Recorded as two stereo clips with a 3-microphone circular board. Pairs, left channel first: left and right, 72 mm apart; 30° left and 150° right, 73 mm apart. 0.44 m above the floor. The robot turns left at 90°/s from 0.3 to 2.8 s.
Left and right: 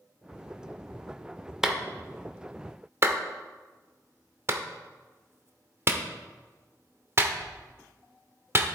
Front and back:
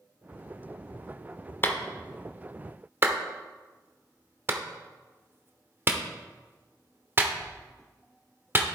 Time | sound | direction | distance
1.6 | a clap | 10° right | 0.8 m